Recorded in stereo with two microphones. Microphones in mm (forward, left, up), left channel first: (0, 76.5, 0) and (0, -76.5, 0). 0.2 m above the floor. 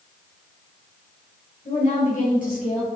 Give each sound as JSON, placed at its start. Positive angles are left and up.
{"t": 1.6, "sound": "a woman speaking", "side_deg": 55, "distance_m": 3.0}